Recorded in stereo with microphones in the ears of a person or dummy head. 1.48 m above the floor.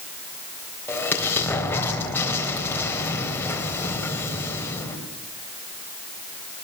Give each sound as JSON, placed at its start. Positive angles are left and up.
{"t": 0.9, "sound": "an explosion", "side_deg": 15, "distance_m": 4.0}